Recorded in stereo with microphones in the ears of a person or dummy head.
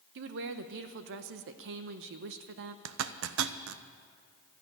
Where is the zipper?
80° right, 0.7 m.